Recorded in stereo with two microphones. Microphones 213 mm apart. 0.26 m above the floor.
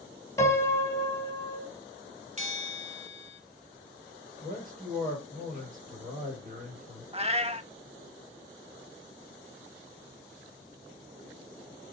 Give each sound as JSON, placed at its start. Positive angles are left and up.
{"t": 0.4, "sound": "a piano", "side_deg": 15, "distance_m": 2.0}
{"t": 2.4, "sound": "a bell", "side_deg": -35, "distance_m": 1.3}
{"t": 4.4, "sound": "a man speaking", "side_deg": -40, "distance_m": 5.0}
{"t": 7.1, "sound": "a cat meowing", "side_deg": -30, "distance_m": 0.5}